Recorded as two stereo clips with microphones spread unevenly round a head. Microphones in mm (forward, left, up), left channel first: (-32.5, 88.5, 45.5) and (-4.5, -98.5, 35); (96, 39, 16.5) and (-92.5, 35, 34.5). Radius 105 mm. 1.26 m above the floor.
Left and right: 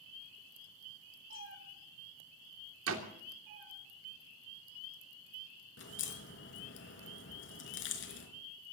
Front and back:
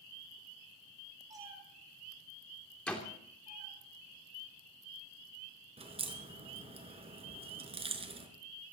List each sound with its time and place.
1.3 s a cat meowing: 105° right, 6.5 m; by 3.7 s 95° right, 7.5 m
2.9 s a door slam: 85° right, 3 m
5.8 s a crack: 125° left, 4.5 m